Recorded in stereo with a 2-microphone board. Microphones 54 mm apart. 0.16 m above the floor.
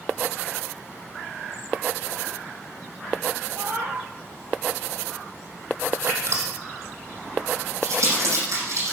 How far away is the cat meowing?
About 2 m.